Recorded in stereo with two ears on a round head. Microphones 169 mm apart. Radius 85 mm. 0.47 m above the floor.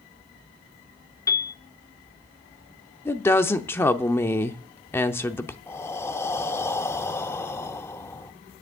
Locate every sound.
1.3 s a piano: 20° left (ahead or behind), 1.0 m
3.0 s a woman speaking: 15° left (ahead or behind), 0.7 m
5.7 s breathing: 15° left (ahead or behind), 0.5 m